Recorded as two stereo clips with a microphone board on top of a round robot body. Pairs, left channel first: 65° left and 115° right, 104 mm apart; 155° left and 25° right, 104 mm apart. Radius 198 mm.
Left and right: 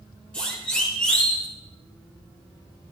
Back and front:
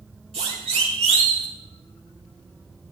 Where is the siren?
10° right, 5.5 m; by 1.5 s 15° right, 4.5 m.